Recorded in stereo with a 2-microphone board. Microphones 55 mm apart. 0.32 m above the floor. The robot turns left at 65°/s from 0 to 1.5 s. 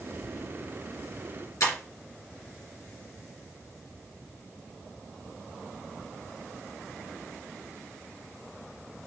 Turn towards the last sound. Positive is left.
turn(degrees=80)